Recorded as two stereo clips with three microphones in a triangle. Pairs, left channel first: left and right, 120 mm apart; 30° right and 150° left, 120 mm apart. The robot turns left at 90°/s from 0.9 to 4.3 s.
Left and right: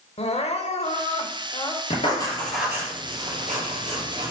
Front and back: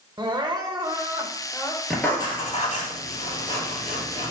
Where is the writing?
60° left, 2.5 m; by 4.3 s 155° right, 2.5 m.